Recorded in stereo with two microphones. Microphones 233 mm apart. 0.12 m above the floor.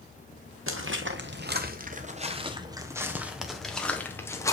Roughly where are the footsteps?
Right.